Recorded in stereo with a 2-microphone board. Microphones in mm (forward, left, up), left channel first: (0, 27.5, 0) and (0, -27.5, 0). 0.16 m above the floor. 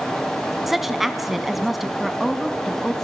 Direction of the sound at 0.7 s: 5° right (ahead or behind).